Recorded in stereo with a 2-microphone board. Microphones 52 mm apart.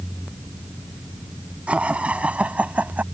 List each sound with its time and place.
1.7 s laughter: 25° right (ahead or behind); by 3.0 s 30° right (ahead or behind)